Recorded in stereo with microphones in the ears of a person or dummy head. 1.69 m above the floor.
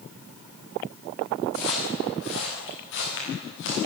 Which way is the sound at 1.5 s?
75° left (ahead or behind).